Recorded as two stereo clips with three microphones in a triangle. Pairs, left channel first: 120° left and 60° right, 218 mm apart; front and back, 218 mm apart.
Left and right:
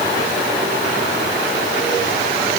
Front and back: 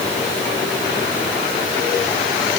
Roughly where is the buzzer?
I don't hear a buzzer.